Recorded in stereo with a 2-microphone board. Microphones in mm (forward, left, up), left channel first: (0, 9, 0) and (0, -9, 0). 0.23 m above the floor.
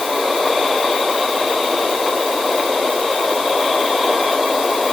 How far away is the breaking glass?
No breaking glass in this recording.